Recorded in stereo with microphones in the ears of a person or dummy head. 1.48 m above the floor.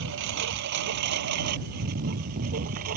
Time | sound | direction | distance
0.0 | a lawn mower | 60° right (ahead or behind) | ?